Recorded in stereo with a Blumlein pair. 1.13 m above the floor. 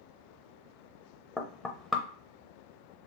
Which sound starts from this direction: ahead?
Knocking, at 1.4 s.